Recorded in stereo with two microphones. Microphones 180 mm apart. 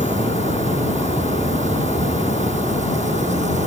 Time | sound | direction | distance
0.0 | an insect | 40° right (ahead or behind) | ?